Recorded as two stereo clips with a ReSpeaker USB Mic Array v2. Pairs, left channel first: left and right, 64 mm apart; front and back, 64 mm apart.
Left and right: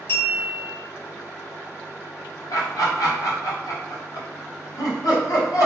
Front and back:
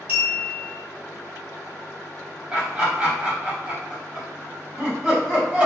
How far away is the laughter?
About 1.3 m.